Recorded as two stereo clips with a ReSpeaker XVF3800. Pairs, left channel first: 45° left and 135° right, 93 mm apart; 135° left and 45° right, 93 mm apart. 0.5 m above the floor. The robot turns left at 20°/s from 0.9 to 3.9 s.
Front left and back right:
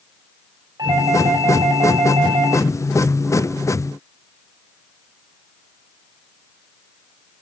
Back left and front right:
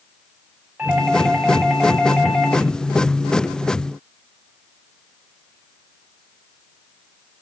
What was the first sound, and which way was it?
A doorbell, 110° right.